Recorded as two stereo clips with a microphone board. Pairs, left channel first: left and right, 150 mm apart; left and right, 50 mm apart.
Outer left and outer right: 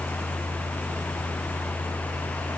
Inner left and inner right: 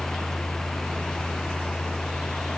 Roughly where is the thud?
No thud in this recording.